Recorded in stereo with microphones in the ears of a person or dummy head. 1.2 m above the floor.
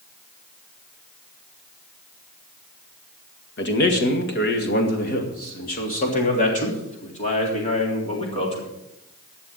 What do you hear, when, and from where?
3.6 s a man speaking: 60° left (ahead or behind), 1.9 m; by 8.7 s 30° left (ahead or behind), 4 m